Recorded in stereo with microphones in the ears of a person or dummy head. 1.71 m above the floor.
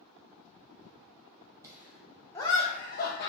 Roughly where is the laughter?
Centre.